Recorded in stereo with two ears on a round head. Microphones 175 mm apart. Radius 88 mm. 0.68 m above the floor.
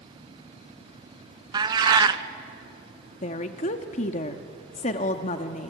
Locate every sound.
1.5 s a cat meowing: 20° right (ahead or behind), 0.8 m
3.2 s a woman speaking: 35° left (ahead or behind), 1.1 m